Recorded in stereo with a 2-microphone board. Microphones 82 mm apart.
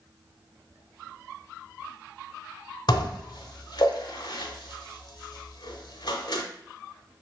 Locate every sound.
2.9 s dishes clattering: 65° left (ahead or behind), 1.0 m